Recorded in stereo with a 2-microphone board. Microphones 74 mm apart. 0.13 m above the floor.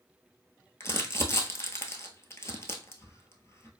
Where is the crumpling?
40° left (ahead or behind), 0.8 m.